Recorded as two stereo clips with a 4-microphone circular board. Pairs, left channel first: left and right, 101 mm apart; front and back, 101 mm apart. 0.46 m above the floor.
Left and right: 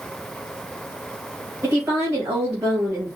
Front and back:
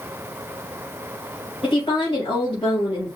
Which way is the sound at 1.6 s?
25° right.